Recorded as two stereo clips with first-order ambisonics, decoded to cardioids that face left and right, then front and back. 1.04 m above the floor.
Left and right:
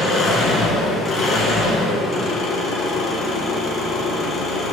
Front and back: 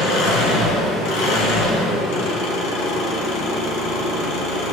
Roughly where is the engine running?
Ahead left.